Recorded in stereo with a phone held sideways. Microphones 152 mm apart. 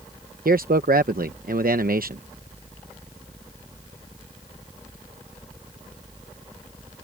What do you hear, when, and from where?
0.5 s a man speaking: 75° right (ahead or behind)